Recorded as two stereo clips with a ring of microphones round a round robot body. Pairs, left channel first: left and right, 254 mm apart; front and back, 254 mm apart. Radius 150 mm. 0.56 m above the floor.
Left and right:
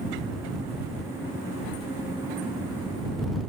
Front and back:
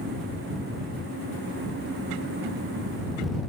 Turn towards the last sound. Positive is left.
No sound to turn to.